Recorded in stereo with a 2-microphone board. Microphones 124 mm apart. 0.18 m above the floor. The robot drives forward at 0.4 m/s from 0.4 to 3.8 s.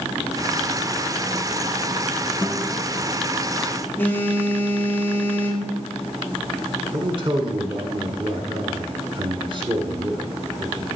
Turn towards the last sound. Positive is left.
turn(degrees=-45)  # may be behind; listen again after turning